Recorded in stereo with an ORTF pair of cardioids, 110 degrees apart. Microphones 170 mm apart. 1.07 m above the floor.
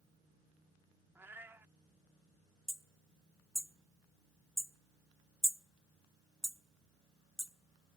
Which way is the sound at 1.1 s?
15° right.